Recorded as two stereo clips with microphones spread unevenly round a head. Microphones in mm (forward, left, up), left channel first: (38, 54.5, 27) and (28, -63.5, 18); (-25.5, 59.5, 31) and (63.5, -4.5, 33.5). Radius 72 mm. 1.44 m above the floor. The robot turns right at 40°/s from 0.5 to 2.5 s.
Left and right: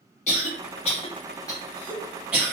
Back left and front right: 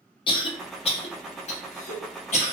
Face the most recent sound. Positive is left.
turn(degrees=-175)